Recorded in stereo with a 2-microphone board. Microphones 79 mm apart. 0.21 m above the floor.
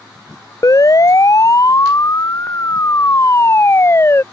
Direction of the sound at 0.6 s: 50° left (ahead or behind).